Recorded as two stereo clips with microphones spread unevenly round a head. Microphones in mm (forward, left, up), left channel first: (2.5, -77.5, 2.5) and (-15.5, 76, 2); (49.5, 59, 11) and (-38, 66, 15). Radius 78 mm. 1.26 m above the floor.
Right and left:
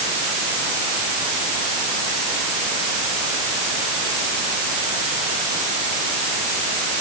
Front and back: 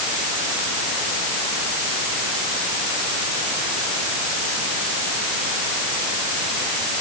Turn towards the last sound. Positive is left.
No sound to turn to.